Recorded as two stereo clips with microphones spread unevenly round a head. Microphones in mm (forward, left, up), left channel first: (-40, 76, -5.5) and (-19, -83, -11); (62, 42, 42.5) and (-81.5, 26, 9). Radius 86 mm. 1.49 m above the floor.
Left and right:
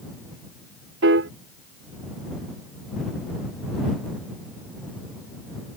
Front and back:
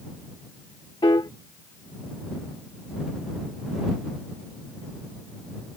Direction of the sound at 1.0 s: 60° right.